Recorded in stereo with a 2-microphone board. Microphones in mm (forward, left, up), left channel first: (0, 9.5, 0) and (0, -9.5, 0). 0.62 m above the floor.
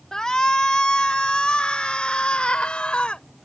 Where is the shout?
35° left (ahead or behind); by 3.2 s 70° left (ahead or behind).